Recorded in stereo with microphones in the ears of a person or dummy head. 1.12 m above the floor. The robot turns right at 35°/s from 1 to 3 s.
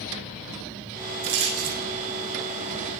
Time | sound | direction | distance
1.2 | a rattle | 60° right (ahead or behind) | 7 m